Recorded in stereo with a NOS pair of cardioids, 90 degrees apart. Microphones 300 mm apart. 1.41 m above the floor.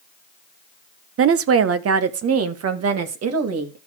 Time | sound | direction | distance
1.2 | a woman speaking | 45° right | 0.7 m